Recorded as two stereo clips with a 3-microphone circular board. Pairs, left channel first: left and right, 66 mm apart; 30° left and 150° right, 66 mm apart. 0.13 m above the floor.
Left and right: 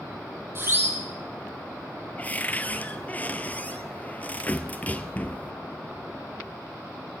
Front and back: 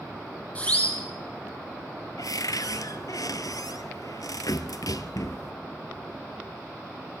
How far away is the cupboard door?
About 1.1 m.